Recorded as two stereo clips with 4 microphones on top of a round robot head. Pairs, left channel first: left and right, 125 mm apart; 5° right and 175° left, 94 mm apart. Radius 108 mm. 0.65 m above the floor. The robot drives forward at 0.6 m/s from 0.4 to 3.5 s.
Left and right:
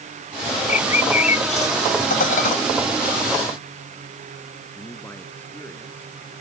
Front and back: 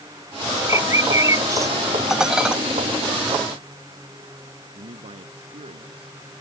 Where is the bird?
115° left; by 1.8 s 120° left.